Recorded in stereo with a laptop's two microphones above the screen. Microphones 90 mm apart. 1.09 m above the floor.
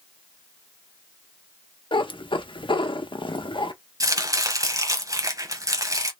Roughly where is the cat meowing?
Left.